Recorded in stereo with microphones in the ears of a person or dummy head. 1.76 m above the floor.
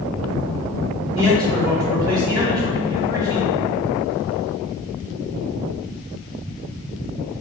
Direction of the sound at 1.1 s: 20° right (ahead or behind).